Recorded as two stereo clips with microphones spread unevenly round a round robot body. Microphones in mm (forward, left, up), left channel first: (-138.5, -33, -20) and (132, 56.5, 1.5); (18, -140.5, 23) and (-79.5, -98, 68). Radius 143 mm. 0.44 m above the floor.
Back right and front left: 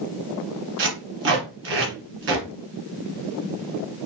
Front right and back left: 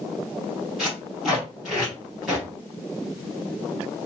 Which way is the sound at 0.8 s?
70° left.